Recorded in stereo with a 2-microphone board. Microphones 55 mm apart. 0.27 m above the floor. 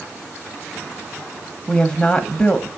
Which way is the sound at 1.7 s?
15° left (ahead or behind).